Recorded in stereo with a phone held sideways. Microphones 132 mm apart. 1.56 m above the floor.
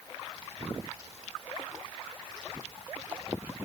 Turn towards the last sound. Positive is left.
No sound to turn to.